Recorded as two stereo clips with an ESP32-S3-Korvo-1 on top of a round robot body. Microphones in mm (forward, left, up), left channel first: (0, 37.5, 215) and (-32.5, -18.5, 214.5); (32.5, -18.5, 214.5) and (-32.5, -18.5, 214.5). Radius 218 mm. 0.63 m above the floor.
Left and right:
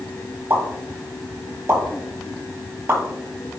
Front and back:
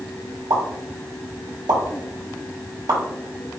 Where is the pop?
175° right, 2 m.